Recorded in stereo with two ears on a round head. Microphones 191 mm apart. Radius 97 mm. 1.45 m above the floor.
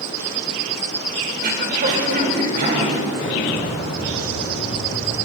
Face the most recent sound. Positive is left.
turn(degrees=55)  # may be behind; listen again after turning